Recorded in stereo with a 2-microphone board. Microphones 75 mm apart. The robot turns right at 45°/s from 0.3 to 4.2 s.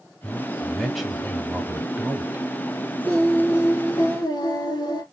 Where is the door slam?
No door slam in this recording.